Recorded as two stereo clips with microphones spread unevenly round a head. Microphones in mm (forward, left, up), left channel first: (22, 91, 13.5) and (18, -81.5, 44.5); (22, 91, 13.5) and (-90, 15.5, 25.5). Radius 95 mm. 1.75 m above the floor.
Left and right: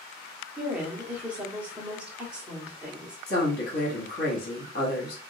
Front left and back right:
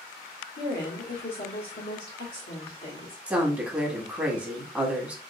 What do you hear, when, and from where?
0.6 s a woman speaking: 10° right, 1.3 m
3.3 s a woman speaking: 140° left, 1.2 m